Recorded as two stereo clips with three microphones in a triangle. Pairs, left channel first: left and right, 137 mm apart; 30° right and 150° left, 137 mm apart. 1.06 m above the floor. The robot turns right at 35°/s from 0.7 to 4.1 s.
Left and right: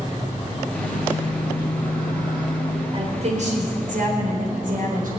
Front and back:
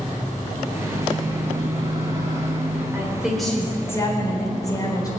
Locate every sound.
0.7 s a microwave: 120° left, 8 m; by 2.8 s 170° right, 8 m
2.9 s a woman speaking: 135° right, 4 m; by 5.1 s 95° right, 4 m